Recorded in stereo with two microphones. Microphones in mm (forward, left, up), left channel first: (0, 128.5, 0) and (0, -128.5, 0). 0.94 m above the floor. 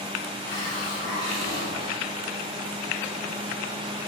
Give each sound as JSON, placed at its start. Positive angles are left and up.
{"t": 0.4, "sound": "a hiss", "side_deg": 80, "distance_m": 3.0}